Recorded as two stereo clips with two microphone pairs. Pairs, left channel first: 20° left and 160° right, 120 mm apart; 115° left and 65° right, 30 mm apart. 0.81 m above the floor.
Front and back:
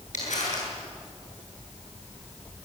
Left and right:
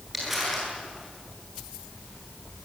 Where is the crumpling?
20° left, 9.5 m.